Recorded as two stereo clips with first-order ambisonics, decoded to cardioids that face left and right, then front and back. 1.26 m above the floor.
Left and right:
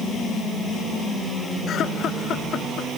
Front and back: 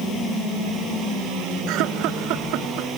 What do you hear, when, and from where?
1.7 s laughter: 145° left